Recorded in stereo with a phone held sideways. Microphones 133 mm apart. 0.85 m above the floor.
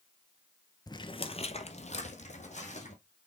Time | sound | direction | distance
0.9 | footsteps | 30° left (ahead or behind) | 0.9 m